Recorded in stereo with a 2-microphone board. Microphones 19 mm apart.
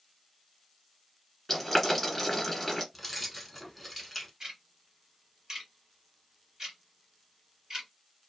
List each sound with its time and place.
1.5 s boiling: 10° left (ahead or behind), 1.5 m
2.9 s keys jangling: centre (ahead or behind), 0.9 m
4.4 s ticking: 30° right (ahead or behind), 1.8 m